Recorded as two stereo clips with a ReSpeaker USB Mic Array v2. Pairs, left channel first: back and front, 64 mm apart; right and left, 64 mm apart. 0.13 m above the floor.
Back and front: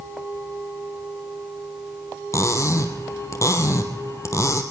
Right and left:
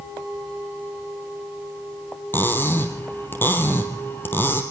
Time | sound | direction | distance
2.3 | cutlery clinking | 145° right | 2.5 m